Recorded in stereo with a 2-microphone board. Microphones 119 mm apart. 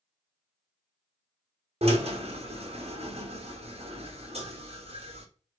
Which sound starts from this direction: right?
A drill, at 1.8 s.